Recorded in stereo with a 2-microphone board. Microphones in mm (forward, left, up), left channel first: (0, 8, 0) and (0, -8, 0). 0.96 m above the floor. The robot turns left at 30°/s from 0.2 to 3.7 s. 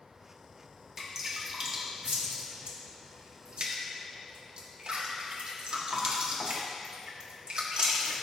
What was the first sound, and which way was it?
Dripping, 20° right (ahead or behind).